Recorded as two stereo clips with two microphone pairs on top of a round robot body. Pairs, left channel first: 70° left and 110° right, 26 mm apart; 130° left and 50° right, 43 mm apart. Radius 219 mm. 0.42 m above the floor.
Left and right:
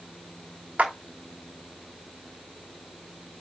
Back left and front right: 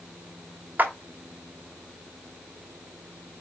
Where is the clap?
95° right, 2.5 m.